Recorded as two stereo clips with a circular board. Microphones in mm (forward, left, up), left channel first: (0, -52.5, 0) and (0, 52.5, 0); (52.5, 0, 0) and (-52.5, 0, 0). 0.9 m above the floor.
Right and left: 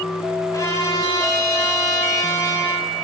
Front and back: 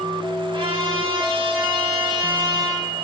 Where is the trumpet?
145° right, 5.5 m.